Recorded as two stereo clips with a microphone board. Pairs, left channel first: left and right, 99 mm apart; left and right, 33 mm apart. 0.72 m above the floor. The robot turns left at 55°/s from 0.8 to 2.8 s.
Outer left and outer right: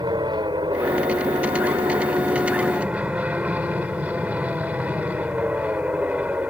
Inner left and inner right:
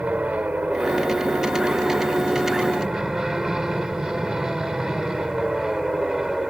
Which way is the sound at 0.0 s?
55° right.